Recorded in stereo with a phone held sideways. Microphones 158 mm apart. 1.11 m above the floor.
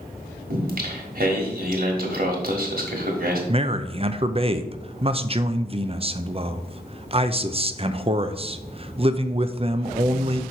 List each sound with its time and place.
0.5 s singing: 60° right (ahead or behind), 1.5 m
3.5 s a man speaking: 35° right (ahead or behind), 0.5 m